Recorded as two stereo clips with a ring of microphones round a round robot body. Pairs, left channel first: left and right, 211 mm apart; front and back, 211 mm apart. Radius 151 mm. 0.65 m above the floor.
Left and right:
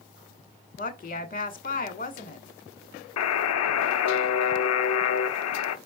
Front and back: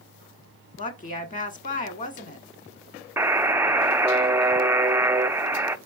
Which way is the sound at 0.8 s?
50° left.